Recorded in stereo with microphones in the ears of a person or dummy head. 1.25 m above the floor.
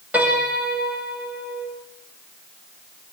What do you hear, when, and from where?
0.1 s a piano: 5° right (ahead or behind), 7.5 m